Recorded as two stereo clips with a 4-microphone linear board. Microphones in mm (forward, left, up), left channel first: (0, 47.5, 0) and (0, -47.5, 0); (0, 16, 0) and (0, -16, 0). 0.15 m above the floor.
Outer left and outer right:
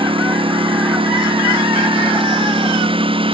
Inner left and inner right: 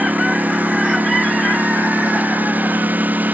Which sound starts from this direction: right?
A lawn mower, at 0.0 s.